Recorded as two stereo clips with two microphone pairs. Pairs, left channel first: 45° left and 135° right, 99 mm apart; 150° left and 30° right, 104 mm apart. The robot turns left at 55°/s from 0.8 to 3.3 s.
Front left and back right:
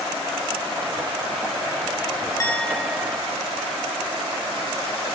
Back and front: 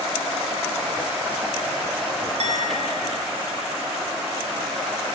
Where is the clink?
15° right, 3 m; by 3.3 s 65° right, 3 m.